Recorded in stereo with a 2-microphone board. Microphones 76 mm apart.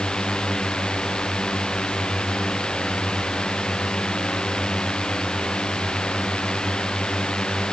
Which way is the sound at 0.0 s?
10° left (ahead or behind).